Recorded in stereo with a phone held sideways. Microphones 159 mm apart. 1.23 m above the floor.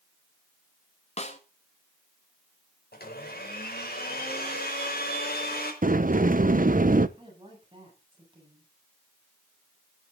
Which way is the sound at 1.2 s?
45° left (ahead or behind).